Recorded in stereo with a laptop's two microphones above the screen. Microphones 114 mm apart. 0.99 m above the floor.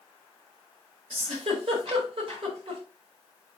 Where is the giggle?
55° right (ahead or behind), 4 m.